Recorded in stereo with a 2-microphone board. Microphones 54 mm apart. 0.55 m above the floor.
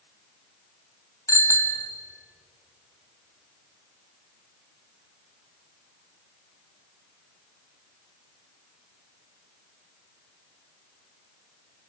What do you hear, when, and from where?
1.3 s a bicycle bell: 70° left (ahead or behind), 2.5 m